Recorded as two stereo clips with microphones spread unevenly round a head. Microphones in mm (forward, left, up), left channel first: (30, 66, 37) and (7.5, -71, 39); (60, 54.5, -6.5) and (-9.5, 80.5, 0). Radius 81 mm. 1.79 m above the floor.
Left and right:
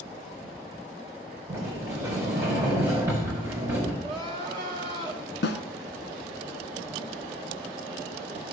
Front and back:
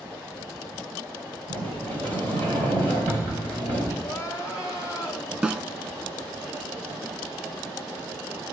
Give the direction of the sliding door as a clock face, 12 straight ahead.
6 o'clock.